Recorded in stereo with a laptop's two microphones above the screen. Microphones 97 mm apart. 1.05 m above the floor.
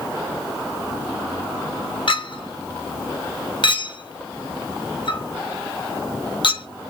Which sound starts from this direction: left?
A clink, at 2.1 s.